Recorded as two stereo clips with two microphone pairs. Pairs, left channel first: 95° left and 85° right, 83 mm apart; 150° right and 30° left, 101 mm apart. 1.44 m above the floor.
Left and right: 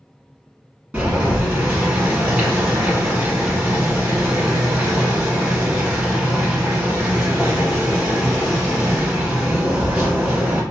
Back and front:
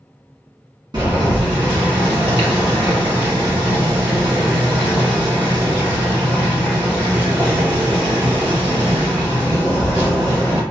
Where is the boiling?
15° right, 1.2 m.